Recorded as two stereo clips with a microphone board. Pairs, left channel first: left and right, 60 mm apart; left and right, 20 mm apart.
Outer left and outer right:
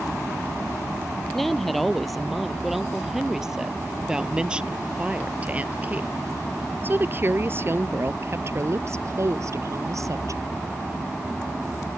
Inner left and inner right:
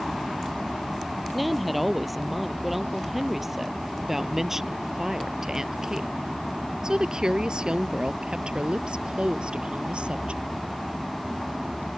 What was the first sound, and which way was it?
A woman speaking, 5° left (ahead or behind).